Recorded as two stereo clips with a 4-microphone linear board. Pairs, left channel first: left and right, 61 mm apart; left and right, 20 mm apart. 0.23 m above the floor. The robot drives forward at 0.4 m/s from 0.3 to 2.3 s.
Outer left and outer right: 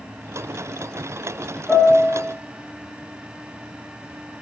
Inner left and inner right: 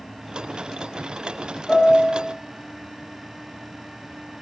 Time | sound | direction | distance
1.7 | a piano | 30° right (ahead or behind) | 3 m